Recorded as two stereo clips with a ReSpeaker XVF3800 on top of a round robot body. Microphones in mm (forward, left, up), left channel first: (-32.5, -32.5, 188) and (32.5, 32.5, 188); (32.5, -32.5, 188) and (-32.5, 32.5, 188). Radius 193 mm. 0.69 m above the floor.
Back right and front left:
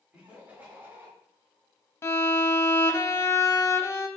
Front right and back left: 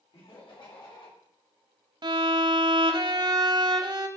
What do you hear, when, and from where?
0.1 s laughter: 35° right, 3 m; by 1.1 s 20° right, 3.5 m
2.0 s a violin: 165° left, 1.0 m